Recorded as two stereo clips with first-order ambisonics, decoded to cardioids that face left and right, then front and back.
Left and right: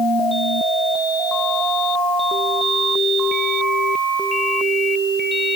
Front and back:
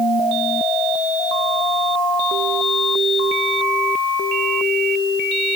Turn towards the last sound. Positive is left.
No sound to turn to.